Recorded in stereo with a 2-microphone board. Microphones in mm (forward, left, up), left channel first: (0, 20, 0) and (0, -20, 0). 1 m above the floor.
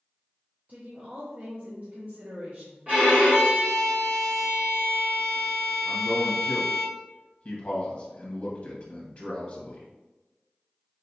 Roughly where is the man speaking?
Left.